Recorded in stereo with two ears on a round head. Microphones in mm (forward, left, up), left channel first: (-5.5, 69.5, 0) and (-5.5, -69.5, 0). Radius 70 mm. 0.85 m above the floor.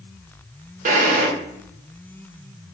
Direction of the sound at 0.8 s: 50° right (ahead or behind).